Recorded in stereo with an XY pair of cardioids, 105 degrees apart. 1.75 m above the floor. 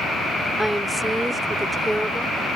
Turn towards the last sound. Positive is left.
turn(degrees=-5)